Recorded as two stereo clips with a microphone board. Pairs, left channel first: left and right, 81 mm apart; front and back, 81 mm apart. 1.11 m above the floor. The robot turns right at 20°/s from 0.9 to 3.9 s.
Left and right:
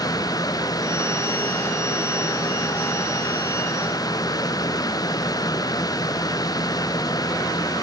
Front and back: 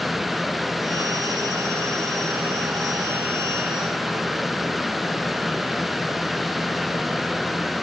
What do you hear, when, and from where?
Only background noise.